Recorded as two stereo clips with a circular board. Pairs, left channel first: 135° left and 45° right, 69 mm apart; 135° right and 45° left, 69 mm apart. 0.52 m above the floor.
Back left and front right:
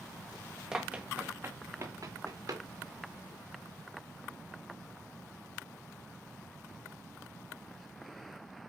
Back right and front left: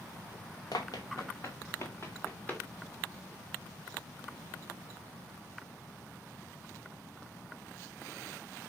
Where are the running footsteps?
125° right, 1.7 m; by 2.6 s 65° right, 3 m.